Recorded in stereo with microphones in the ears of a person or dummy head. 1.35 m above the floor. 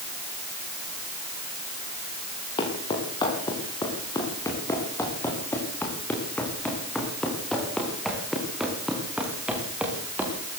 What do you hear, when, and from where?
2.6 s footsteps: 25° left (ahead or behind), 6.5 m; by 10.6 s 10° right (ahead or behind), 7 m